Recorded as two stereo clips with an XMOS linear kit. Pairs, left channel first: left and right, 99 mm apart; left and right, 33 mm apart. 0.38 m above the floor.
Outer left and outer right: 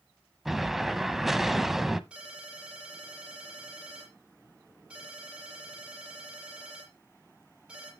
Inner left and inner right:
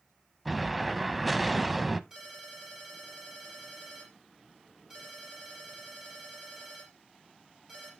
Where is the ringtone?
10° right (ahead or behind), 7 m.